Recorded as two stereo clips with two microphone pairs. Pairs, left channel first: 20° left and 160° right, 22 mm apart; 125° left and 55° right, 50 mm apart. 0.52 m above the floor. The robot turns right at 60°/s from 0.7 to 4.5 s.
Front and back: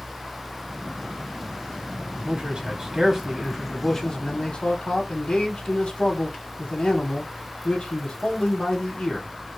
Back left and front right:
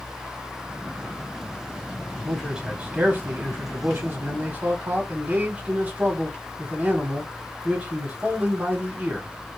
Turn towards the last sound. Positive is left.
turn(degrees=0)